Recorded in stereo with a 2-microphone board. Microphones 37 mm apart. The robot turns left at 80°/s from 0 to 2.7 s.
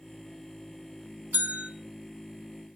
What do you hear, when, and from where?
1.3 s a bell: 55° right (ahead or behind), 2.0 m; by 1.7 s 25° right (ahead or behind), 2.0 m